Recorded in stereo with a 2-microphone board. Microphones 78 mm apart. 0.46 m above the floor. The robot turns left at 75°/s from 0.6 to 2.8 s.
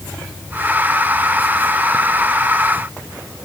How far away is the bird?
I don't hear a bird.